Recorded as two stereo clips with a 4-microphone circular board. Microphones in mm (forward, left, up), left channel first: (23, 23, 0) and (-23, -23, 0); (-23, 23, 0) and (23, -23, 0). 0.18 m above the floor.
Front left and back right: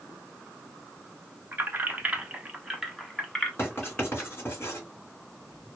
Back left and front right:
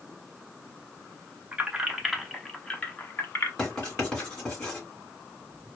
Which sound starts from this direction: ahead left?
Writing, at 3.6 s.